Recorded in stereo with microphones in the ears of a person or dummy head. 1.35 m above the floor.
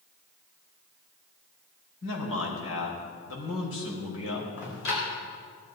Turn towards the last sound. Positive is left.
turn(degrees=70)  # may be behind; listen again after turning